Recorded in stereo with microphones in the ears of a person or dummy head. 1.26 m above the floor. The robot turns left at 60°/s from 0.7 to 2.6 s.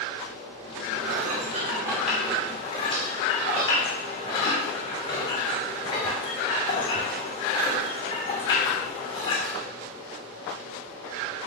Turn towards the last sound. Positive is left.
turn(degrees=155)